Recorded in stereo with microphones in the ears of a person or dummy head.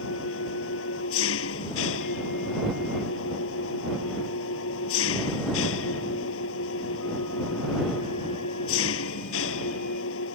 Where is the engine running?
90° left.